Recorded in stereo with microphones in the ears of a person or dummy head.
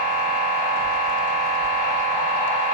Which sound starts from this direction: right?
A machine running, at 0.0 s.